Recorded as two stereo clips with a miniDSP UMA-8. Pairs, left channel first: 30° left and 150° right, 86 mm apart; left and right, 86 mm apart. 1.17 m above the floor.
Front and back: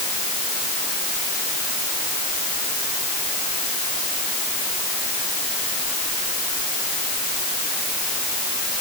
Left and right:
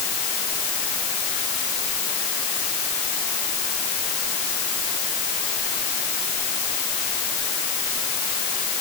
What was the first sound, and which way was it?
Only background noise.